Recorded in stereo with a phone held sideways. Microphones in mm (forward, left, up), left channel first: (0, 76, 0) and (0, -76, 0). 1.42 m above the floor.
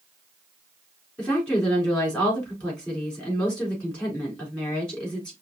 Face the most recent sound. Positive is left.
turn(degrees=5)  # may be behind; listen again after turning